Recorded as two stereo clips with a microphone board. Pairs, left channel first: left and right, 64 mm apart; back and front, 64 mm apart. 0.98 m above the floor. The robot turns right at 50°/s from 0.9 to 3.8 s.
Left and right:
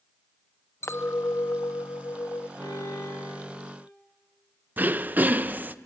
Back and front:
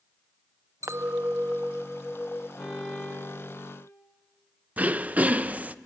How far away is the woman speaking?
No woman speaking in this recording.